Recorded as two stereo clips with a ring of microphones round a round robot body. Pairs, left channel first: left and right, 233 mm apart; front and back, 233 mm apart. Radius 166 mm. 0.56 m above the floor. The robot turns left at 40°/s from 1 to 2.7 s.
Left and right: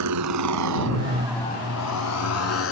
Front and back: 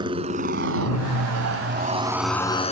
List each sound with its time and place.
0.0 s a motorcycle: 105° right; by 2.7 s 65° left